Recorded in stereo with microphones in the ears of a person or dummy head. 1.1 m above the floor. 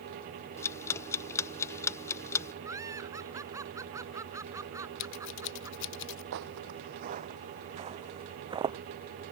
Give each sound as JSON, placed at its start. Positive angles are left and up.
{"t": 0.6, "sound": "ticking", "side_deg": 15}
{"t": 2.6, "sound": "laughter", "side_deg": -15}
{"t": 5.0, "sound": "scissors", "side_deg": 70}
{"t": 6.3, "sound": "footsteps", "side_deg": -55}